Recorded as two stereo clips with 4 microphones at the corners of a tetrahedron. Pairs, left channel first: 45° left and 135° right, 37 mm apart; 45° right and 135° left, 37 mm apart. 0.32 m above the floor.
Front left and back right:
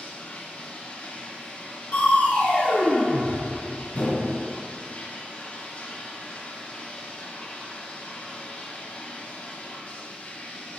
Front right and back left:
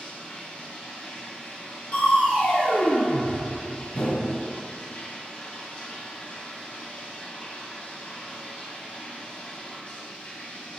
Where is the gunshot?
I don't hear a gunshot.